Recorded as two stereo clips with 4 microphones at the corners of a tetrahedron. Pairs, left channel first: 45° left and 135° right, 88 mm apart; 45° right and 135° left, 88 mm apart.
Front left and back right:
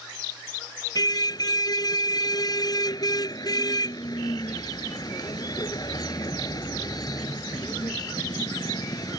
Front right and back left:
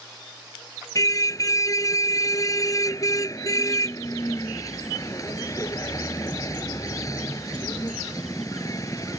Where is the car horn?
5° left.